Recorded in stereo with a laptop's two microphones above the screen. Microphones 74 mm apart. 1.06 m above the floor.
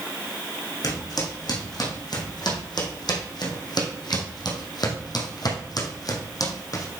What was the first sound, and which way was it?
Footsteps, 60° left (ahead or behind).